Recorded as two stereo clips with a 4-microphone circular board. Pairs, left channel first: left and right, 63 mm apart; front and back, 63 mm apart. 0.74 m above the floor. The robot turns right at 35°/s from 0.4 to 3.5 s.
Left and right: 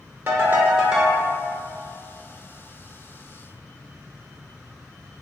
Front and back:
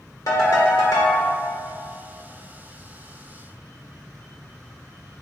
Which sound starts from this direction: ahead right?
A ringtone, at 0.3 s.